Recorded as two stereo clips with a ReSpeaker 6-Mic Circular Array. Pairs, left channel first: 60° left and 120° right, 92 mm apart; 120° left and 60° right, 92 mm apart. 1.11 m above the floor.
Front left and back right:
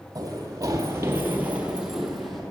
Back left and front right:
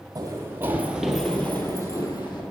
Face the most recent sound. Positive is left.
turn(degrees=145)